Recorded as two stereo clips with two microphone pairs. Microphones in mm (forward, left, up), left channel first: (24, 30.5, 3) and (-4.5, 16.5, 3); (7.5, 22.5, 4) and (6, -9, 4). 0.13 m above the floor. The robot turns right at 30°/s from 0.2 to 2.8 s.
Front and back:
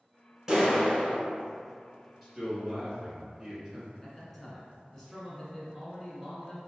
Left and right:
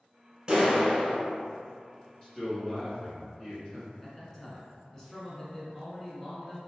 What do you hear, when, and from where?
0.5 s a clap: 100° right, 1.3 m; by 1.2 s 80° right, 1.3 m
2.2 s a man speaking: 100° left, 1.5 m; by 3.9 s 115° left, 1.5 m
4.0 s a man speaking: 50° left, 1.0 m